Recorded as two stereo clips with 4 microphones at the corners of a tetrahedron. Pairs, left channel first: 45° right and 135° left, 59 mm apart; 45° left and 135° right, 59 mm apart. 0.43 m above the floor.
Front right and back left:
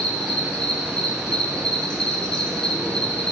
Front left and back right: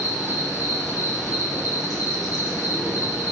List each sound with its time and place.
0.0 s an insect: 40° left, 3.5 m